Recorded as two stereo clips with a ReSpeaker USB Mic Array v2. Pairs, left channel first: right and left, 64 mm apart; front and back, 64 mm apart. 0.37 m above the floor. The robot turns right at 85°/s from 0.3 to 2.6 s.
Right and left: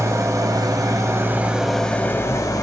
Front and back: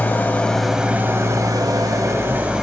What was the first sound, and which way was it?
An engine running, 60° left.